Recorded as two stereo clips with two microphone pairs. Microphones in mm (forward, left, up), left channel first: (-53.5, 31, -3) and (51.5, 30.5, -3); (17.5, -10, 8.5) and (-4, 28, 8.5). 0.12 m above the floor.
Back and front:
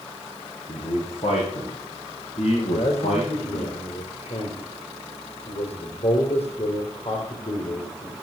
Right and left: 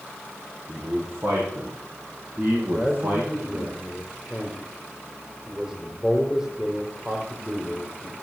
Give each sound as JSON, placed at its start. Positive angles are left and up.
{"t": 0.7, "sound": "a man speaking", "azimuth_deg": 150, "distance_m": 6.0}
{"t": 2.7, "sound": "a man speaking", "azimuth_deg": -170, "distance_m": 4.0}